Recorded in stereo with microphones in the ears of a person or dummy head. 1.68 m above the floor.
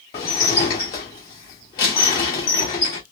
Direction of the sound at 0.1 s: 15° left (ahead or behind).